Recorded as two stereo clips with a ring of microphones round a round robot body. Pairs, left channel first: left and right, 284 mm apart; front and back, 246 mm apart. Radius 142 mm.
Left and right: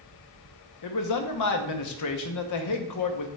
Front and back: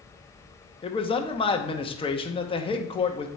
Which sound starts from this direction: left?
A man speaking, at 0.8 s.